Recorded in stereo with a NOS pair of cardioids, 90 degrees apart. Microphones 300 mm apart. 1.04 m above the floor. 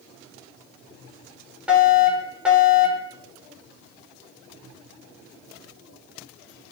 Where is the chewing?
No chewing in this recording.